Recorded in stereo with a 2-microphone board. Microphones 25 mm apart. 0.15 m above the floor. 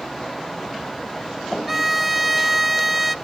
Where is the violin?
10° right (ahead or behind), 0.5 m.